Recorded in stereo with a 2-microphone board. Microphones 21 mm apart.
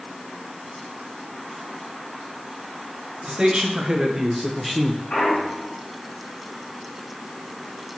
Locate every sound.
3.2 s a man speaking: 45° right (ahead or behind), 1.6 m; by 5.0 s 15° left (ahead or behind), 0.8 m
5.1 s a clunk: 75° left (ahead or behind), 2.5 m